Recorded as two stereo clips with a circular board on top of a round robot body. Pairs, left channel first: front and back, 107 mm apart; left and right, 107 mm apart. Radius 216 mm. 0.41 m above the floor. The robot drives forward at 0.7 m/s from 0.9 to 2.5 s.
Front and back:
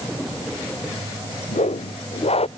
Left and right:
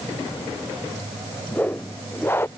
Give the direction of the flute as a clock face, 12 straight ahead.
I don't hear a flute.